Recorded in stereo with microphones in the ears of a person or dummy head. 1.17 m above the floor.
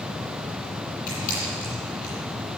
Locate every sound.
1.1 s a camera shutter: 50° left (ahead or behind), 9 m